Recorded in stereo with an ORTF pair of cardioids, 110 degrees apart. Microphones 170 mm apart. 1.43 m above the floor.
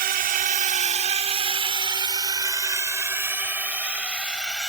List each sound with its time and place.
0.0 s a drone: 65° right; by 4.7 s 5° right